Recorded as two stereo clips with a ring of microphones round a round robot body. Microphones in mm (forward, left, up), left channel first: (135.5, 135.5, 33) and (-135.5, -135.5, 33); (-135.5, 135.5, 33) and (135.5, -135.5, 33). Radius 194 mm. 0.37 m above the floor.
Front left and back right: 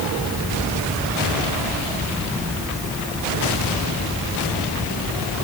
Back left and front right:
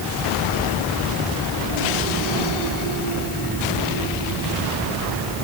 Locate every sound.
Only background noise.